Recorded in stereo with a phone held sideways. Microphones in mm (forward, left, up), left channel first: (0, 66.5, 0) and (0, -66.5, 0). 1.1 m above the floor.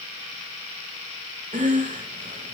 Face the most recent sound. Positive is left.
turn(degrees=-70)  # may be behind; listen again after turning